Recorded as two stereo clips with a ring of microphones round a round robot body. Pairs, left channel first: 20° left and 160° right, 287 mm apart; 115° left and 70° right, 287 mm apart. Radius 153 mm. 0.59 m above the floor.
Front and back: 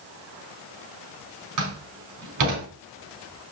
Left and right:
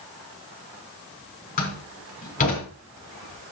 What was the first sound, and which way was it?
A door slam, 175° left.